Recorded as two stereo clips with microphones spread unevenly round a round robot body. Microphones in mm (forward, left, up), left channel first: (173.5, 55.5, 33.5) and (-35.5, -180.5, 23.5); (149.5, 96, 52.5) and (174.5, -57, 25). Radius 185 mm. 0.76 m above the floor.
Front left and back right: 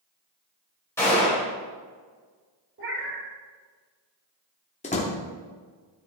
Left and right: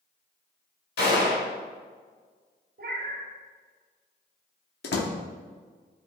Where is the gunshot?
130° left, 2 m.